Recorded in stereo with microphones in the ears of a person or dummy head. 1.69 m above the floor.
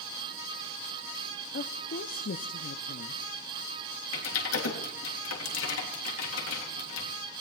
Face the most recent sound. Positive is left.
turn(degrees=90)